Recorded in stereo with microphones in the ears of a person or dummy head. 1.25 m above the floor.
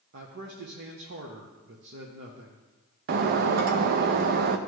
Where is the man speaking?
60° right (ahead or behind), 0.9 m.